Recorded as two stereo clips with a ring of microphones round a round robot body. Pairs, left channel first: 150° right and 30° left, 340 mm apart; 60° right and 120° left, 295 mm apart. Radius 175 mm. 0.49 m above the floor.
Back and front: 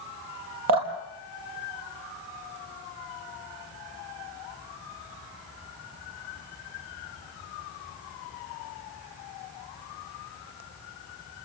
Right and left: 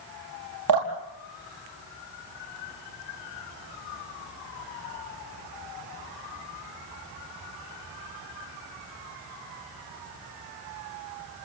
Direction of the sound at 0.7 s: 75° left.